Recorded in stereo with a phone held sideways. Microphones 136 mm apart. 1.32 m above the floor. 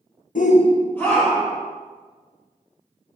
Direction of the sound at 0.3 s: 65° left (ahead or behind).